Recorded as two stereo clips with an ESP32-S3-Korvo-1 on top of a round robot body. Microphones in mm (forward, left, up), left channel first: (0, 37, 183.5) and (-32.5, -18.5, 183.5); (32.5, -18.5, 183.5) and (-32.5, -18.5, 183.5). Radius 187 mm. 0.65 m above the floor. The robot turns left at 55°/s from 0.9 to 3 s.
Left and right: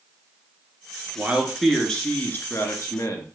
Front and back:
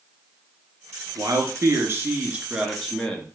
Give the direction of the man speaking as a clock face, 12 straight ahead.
6 o'clock.